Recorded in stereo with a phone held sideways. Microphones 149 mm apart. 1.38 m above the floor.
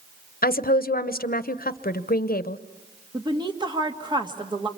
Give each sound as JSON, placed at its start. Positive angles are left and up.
{"t": 0.4, "sound": "a woman speaking", "side_deg": 85, "distance_m": 0.8}
{"t": 3.1, "sound": "a woman speaking", "side_deg": -30, "distance_m": 1.9}